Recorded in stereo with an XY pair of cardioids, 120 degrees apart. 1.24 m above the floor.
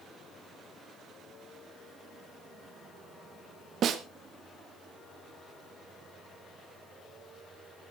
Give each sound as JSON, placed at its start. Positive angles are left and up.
{"t": 3.8, "sound": "a snare drum", "azimuth_deg": -55, "distance_m": 1.7}